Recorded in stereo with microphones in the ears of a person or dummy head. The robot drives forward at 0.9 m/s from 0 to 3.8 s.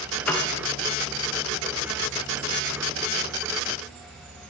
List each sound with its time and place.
0.3 s a piano: 10° left (ahead or behind), 0.8 m